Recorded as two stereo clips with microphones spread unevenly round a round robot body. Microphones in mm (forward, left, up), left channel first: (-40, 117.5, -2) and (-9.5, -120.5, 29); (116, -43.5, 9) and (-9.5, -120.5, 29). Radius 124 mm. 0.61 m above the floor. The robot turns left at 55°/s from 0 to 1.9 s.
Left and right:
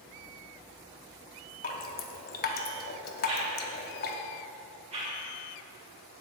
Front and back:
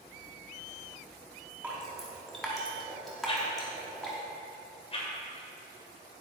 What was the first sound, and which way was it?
Dripping, 130° left.